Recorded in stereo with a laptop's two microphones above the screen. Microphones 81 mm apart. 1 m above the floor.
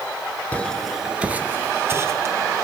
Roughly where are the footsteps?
Centre.